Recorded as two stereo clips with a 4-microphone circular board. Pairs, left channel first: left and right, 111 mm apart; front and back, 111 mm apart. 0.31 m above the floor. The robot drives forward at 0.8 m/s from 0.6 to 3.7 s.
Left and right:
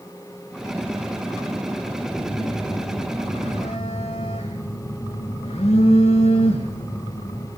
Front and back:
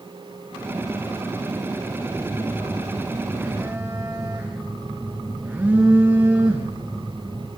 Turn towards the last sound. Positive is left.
turn(degrees=105)